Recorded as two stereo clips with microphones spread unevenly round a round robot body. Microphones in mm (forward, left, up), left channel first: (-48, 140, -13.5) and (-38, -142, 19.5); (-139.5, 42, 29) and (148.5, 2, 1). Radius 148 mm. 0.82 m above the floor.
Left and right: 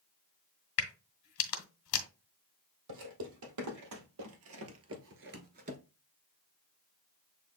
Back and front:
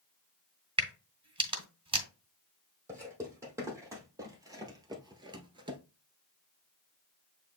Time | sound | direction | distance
0.8 | a crack | 65° left | 1.5 m
2.9 | footsteps | 90° right | 2 m